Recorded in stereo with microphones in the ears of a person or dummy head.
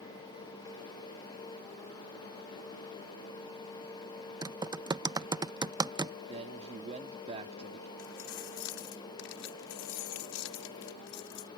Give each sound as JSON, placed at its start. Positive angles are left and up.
{"t": 4.4, "sound": "typing on a keyboard", "side_deg": -15}
{"t": 6.3, "sound": "a man speaking", "side_deg": -40}
{"t": 8.0, "sound": "keys jangling", "side_deg": 75}